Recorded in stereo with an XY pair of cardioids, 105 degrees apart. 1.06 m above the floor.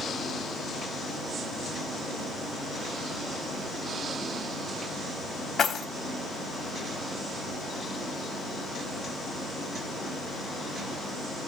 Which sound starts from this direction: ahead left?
Keys jangling, at 5.6 s.